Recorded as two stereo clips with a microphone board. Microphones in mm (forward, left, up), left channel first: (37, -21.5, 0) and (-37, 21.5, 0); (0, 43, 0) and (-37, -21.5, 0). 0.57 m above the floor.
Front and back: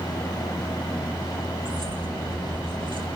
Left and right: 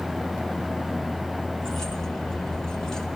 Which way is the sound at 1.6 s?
140° left.